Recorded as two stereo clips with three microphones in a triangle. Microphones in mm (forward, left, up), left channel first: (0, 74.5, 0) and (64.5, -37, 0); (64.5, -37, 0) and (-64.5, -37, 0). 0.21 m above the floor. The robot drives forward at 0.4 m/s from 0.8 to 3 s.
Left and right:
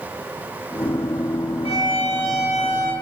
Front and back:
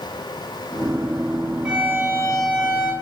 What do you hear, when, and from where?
1.6 s a violin: 100° left, 0.6 m; by 2.9 s 140° left, 0.8 m